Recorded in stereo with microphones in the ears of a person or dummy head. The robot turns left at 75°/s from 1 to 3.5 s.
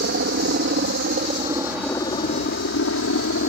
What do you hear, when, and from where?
0.0 s a helicopter: 45° right (ahead or behind); by 3.5 s 55° left (ahead or behind)